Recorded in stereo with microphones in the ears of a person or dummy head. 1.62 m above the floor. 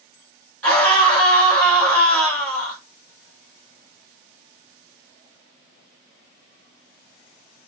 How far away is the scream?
About 4.5 m.